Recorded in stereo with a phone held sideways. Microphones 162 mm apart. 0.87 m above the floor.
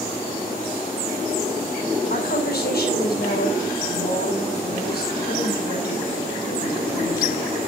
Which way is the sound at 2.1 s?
70° left (ahead or behind).